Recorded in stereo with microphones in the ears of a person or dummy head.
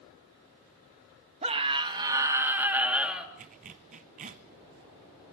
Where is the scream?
30° right (ahead or behind), 1.9 m; by 3.3 s centre (ahead or behind), 3 m.